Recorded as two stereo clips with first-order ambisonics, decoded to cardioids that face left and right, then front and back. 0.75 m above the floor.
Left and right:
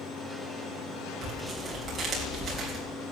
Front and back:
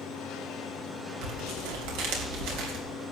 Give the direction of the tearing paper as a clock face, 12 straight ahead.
5 o'clock.